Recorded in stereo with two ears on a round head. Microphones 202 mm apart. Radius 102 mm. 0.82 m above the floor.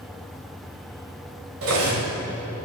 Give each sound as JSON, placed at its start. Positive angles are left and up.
{"t": 1.6, "sound": "cutlery clinking", "side_deg": -65, "distance_m": 2.0}